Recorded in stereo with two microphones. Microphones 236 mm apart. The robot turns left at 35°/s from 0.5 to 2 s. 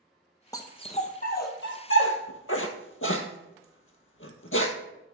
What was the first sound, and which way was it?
A dog barking, 15° left (ahead or behind).